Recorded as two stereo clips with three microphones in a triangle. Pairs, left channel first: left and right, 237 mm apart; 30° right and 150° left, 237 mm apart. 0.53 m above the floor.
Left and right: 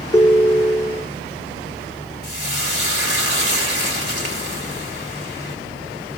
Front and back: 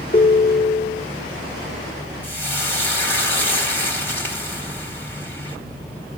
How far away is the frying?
About 3 m.